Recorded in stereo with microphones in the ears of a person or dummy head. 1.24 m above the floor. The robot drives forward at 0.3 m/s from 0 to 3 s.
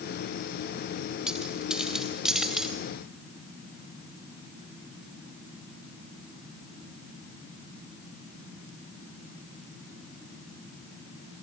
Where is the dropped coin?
Centre (ahead or behind), 2 m.